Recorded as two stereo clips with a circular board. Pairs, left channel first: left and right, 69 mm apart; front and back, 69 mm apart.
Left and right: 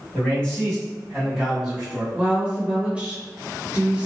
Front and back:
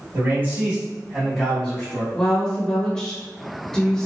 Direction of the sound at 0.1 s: 155° left.